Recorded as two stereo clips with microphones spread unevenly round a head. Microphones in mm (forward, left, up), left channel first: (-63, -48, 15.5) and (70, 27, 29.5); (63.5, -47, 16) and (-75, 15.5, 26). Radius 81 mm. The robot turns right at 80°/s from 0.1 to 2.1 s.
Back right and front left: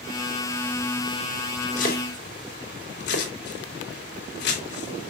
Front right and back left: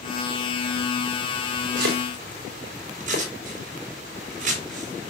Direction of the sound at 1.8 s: 165° left.